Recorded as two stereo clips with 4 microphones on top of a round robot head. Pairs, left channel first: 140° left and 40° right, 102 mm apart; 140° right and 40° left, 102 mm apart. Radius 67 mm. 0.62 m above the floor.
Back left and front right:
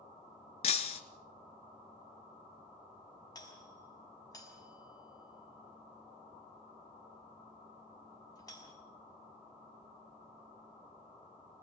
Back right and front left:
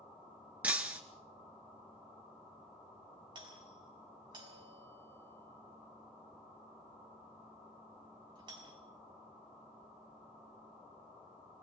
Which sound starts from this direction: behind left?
Breaking glass, at 0.6 s.